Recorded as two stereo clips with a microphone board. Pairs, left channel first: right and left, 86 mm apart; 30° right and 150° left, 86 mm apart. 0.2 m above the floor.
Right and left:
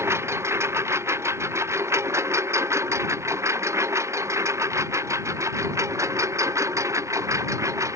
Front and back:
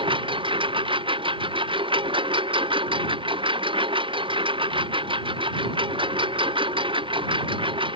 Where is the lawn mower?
150° left; by 8.0 s 145° left.